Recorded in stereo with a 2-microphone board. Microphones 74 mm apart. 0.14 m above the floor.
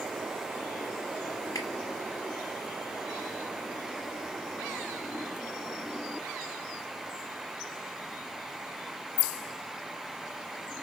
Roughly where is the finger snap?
Left.